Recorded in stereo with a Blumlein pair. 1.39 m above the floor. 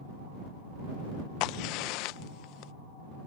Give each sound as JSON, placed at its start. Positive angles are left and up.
{"t": 1.4, "sound": "a crack", "azimuth_deg": 40}